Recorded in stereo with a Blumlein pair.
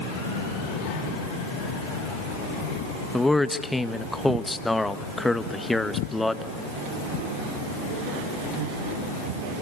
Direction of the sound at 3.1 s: 5° left.